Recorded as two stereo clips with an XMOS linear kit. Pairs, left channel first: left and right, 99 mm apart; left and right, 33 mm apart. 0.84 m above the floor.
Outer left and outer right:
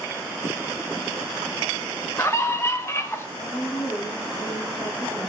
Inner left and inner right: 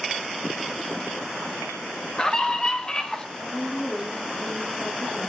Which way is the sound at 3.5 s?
45° left (ahead or behind).